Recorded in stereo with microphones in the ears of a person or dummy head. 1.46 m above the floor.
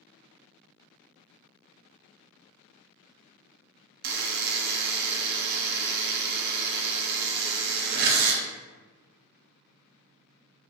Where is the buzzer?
55° right (ahead or behind), 0.6 m.